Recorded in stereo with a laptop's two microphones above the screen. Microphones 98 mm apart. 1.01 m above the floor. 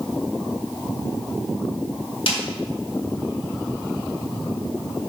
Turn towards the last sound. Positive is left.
turn(degrees=65)  # may be behind; listen again after turning